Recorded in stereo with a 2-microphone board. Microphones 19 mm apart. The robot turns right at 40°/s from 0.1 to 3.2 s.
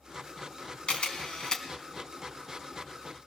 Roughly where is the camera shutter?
Left.